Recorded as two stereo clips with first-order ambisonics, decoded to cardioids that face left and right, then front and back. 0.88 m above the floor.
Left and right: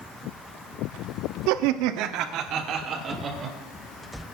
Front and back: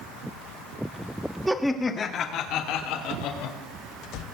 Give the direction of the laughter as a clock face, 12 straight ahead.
3 o'clock.